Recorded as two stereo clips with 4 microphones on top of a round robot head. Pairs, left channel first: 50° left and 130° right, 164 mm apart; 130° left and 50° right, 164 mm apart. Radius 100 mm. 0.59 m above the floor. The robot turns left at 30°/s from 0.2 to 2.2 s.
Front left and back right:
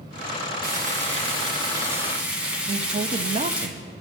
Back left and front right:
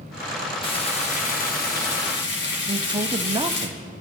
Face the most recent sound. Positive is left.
turn(degrees=-100)